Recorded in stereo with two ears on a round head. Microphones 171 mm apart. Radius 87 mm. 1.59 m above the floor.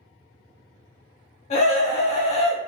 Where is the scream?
35° left (ahead or behind), 1.0 m.